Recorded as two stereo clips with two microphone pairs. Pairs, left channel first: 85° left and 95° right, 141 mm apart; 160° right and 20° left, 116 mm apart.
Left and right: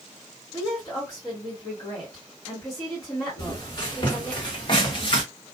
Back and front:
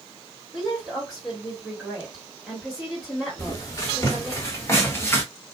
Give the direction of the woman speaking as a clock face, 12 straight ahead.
9 o'clock.